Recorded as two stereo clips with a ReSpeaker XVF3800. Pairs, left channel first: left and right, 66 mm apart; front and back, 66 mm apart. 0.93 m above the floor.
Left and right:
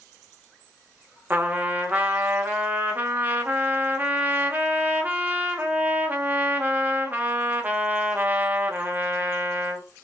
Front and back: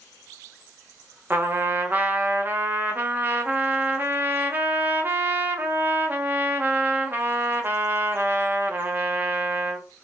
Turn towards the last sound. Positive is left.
turn(degrees=-135)